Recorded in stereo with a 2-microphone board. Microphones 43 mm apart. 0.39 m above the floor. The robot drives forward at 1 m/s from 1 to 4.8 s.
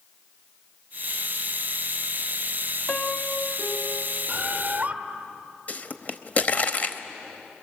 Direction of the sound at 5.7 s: 35° left (ahead or behind).